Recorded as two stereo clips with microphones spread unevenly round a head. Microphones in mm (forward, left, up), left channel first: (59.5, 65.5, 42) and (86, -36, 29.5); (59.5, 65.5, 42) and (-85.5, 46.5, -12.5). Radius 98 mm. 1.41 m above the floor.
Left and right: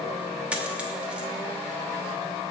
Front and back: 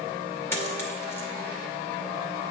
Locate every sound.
0.5 s a dropped coin: 5° left, 0.9 m